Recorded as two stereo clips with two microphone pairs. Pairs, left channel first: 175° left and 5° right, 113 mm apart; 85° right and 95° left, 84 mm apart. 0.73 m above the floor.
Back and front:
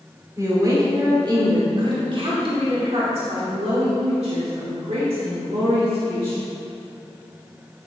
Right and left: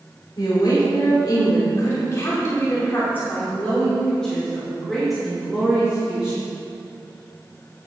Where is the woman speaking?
60° right, 2.5 m; by 6.4 s 15° left, 3 m.